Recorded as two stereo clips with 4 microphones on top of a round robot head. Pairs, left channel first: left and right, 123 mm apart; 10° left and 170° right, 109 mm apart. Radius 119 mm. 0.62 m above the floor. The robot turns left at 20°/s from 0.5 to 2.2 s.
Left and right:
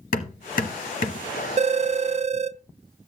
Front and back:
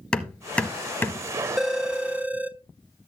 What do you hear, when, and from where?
0.1 s hammering: 90° left, 1.0 m; by 1.3 s 75° left, 1.0 m
1.6 s a phone ringing: 85° right, 0.5 m; by 2.6 s 95° right, 0.5 m